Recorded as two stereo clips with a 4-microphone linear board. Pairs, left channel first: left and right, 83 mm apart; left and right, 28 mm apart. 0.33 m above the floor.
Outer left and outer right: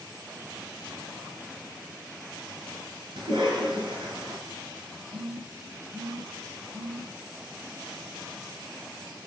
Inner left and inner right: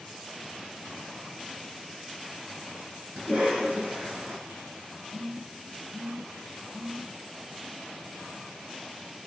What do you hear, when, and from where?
3.2 s a cough: 60° right (ahead or behind), 4.5 m
5.1 s a phone buzzing: 45° right (ahead or behind), 1.9 m